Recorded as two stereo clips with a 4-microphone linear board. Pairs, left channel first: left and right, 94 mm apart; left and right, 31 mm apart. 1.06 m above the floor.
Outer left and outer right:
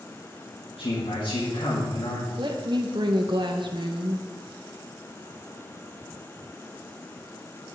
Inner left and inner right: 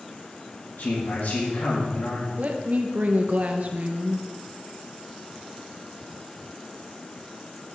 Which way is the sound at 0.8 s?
70° left (ahead or behind).